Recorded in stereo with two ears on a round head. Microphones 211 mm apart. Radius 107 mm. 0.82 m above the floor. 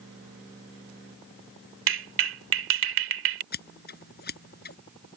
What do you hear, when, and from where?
1.9 s a clap: 60° right (ahead or behind)
3.5 s scissors: 45° left (ahead or behind)